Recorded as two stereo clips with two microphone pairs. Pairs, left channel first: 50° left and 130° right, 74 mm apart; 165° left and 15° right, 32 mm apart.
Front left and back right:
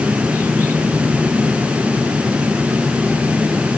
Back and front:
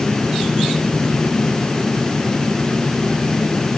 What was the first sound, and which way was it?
Only background noise.